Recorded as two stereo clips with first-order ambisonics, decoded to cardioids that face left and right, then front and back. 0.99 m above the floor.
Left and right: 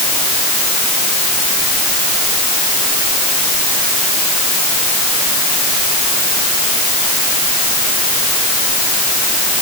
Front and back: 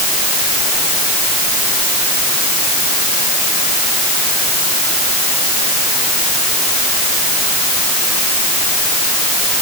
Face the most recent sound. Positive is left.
No sound to turn to.